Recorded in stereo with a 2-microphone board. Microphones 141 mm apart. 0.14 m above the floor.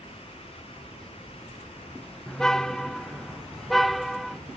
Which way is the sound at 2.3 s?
5° left (ahead or behind).